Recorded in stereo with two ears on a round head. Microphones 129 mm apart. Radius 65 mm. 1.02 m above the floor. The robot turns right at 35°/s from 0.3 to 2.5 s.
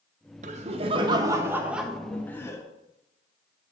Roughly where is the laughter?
Ahead right.